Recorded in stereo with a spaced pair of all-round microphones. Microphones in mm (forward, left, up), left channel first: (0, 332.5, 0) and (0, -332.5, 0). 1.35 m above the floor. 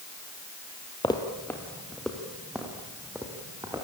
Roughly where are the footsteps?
Centre.